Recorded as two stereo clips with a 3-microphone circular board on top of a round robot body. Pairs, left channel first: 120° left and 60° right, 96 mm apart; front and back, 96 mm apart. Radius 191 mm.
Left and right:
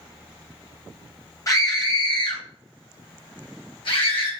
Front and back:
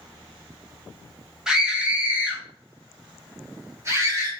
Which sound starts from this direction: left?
A scream, at 1.5 s.